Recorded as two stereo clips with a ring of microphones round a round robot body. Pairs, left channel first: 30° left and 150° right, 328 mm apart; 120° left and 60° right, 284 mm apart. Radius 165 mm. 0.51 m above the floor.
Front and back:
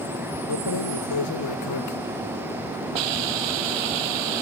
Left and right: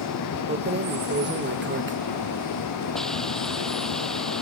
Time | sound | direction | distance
0.5 | keys jangling | 5° right | ?
3.0 | a hiss | 150° right | ?